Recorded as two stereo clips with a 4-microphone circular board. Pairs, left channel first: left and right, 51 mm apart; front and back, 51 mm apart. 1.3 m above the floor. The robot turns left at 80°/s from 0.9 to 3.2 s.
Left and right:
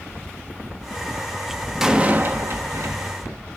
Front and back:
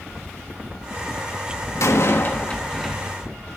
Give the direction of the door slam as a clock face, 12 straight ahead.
12 o'clock.